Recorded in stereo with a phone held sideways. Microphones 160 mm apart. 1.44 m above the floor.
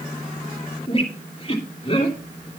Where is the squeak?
35° left (ahead or behind), 2.5 m.